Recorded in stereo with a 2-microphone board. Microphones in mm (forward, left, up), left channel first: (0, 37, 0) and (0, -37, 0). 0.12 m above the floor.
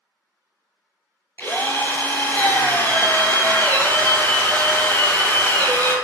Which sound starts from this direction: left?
A drill, at 1.4 s.